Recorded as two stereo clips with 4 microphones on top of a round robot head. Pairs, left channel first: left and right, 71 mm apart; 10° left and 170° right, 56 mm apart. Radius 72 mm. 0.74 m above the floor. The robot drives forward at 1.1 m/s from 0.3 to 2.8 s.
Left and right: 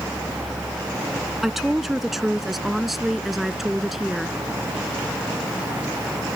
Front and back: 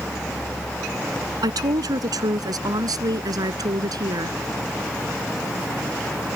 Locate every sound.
1.4 s a woman speaking: straight behind